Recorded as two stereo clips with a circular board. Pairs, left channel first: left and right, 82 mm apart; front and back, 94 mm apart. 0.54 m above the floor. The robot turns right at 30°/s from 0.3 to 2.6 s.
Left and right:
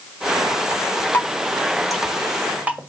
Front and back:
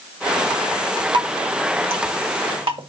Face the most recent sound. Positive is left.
turn(degrees=-160)